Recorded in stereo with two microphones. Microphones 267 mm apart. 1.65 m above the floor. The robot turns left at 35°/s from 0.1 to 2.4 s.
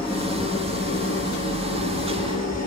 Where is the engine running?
175° left, 2.5 m; by 2.7 s 95° left, 2.5 m.